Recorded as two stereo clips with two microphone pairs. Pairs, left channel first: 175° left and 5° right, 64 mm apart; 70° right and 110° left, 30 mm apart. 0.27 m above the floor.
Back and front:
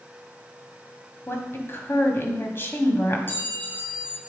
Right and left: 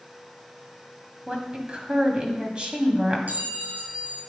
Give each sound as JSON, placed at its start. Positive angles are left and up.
{"t": 1.3, "sound": "a woman speaking", "azimuth_deg": 145, "distance_m": 1.8}
{"t": 3.3, "sound": "a clink", "azimuth_deg": 120, "distance_m": 2.5}